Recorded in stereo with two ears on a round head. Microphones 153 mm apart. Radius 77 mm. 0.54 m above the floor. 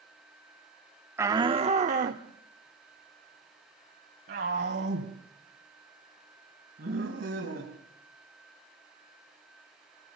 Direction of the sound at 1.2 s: 15° right (ahead or behind).